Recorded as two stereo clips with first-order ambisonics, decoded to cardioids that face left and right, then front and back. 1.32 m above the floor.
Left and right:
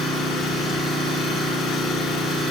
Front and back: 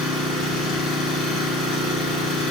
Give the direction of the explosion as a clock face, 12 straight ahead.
I don't hear an explosion.